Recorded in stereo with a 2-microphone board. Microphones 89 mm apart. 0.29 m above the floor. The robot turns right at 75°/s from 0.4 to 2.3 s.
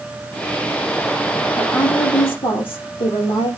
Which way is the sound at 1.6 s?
20° left.